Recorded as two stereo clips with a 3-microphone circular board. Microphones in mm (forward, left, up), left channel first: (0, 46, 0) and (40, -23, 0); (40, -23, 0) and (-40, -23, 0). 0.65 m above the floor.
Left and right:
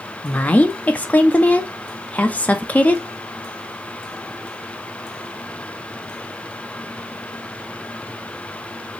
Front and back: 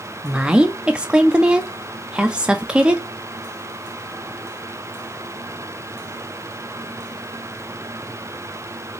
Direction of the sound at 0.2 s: 130° left.